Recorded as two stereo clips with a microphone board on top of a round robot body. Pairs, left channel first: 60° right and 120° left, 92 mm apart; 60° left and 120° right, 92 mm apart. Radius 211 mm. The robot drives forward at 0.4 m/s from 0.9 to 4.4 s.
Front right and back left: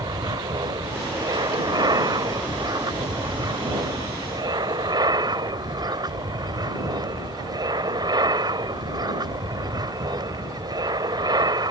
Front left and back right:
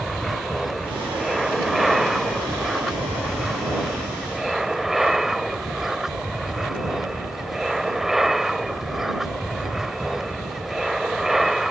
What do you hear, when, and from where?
0.0 s an aircraft: 150° left; by 11.7 s 155° left